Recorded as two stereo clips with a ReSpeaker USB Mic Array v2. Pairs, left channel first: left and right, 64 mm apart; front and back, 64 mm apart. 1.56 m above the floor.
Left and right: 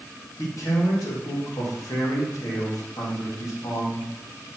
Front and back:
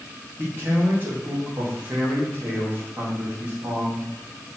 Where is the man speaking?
125° left, 2.5 m.